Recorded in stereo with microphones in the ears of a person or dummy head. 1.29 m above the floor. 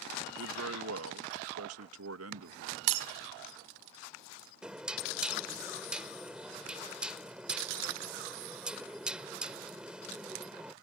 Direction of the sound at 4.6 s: 10° right (ahead or behind).